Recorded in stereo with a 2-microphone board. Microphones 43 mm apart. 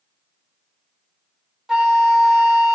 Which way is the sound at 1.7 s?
10° right (ahead or behind).